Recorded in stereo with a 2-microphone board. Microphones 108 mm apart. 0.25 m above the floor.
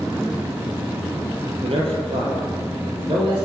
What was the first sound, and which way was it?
A man speaking, 60° right (ahead or behind).